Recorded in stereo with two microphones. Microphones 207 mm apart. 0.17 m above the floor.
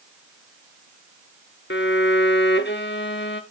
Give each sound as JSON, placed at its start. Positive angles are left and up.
{"t": 1.7, "sound": "a violin", "side_deg": 60, "distance_m": 0.9}